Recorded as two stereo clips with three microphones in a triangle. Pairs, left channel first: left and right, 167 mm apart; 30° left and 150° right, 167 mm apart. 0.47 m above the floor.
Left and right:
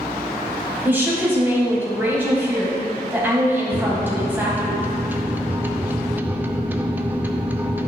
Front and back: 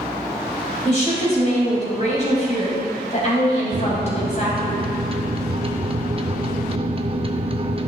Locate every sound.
0.8 s a woman speaking: 15° right, 2.5 m
3.7 s a microwave: 160° right, 0.5 m